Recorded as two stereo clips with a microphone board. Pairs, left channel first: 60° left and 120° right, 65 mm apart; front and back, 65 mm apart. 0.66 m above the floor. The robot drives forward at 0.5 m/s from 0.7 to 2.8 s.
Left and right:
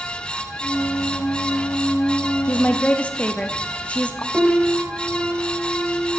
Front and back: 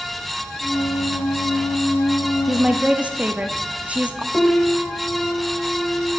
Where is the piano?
55° right, 1.1 m.